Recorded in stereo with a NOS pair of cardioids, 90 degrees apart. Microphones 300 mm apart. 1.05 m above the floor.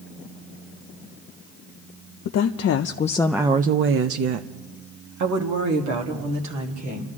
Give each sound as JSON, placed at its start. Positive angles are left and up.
{"t": 2.2, "sound": "a woman speaking", "azimuth_deg": 70, "distance_m": 0.9}